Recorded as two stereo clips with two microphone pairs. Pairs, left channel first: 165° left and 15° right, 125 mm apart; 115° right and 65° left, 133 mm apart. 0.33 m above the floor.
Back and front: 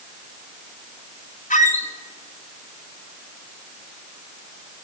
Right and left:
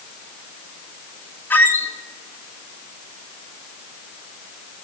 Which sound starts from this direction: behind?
A squeak, at 1.5 s.